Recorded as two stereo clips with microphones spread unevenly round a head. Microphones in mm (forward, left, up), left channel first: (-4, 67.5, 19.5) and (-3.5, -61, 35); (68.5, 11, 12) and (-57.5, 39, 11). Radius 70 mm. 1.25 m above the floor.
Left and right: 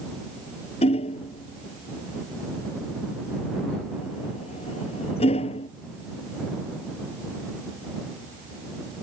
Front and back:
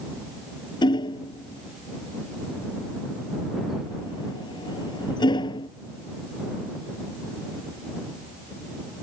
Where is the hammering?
45° left.